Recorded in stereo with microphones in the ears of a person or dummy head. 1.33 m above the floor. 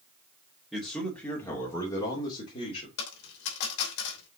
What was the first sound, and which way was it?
A man speaking, centre (ahead or behind).